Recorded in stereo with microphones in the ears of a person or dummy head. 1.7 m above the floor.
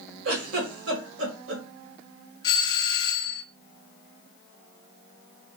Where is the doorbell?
30° left (ahead or behind), 0.7 m.